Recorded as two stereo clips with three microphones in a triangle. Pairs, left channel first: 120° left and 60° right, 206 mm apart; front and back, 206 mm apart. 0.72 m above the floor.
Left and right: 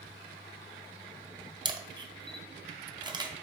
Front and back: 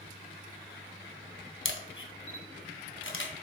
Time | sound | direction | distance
1.6 | a camera shutter | 10° left | 0.5 m